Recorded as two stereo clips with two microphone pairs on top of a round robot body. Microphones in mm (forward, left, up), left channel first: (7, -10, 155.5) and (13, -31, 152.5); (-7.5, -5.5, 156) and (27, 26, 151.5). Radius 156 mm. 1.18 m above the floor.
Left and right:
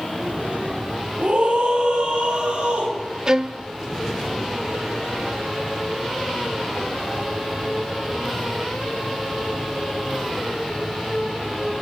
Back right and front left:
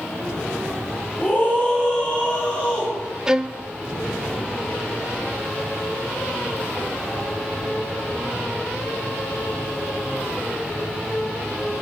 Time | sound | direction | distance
1.2 | a scream | 80° right | 9 m
3.3 | a violin | 30° right | 0.6 m